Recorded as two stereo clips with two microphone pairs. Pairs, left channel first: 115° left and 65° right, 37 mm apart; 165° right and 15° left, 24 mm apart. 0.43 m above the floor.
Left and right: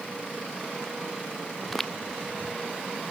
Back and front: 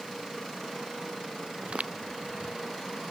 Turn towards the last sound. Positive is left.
turn(degrees=30)